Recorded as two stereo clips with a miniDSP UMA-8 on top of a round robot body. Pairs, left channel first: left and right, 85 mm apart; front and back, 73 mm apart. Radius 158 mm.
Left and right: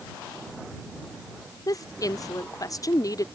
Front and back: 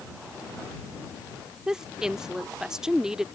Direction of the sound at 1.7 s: 100° left.